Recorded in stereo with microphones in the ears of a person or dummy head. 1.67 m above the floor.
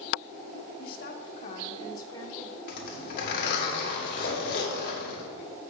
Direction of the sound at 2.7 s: 55° left (ahead or behind).